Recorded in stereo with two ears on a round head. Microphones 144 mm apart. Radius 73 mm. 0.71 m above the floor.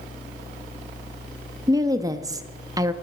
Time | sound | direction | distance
1.7 | a woman speaking | 20° right (ahead or behind) | 0.9 m